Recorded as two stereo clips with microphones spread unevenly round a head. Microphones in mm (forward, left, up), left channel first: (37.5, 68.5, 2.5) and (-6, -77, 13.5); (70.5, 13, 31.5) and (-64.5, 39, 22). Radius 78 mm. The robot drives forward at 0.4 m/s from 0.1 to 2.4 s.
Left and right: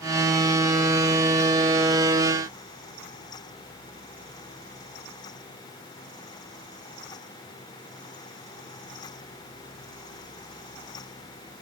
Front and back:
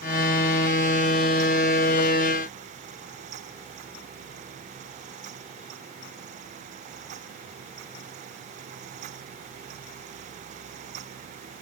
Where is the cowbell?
No cowbell in this recording.